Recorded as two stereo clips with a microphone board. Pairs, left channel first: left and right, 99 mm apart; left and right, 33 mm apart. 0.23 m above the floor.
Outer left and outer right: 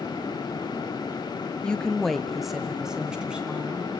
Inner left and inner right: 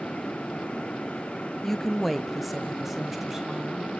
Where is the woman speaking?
10° left (ahead or behind), 0.9 m; by 3.9 s 10° right (ahead or behind), 2 m.